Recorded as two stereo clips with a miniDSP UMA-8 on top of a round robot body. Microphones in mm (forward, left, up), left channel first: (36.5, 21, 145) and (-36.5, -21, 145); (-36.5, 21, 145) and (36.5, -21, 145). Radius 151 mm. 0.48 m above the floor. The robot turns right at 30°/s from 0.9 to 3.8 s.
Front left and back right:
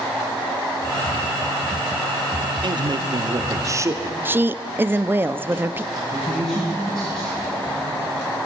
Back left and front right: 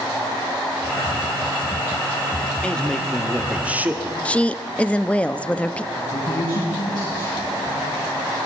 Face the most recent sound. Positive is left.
turn(degrees=110)